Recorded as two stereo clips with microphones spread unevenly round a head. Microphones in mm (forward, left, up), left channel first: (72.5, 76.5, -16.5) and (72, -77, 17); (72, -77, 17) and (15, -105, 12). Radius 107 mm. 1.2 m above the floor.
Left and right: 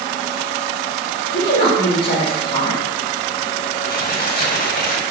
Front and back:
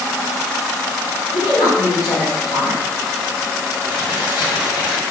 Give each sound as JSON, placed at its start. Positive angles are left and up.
{"t": 1.3, "sound": "a woman speaking", "azimuth_deg": 75, "distance_m": 4.0}
{"t": 3.8, "sound": "crumpling", "azimuth_deg": 60, "distance_m": 3.0}